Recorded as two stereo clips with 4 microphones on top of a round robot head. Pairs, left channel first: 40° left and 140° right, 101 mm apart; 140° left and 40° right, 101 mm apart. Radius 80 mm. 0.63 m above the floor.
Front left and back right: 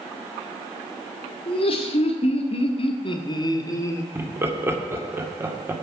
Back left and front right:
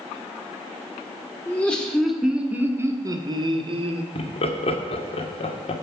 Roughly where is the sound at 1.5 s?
Ahead left.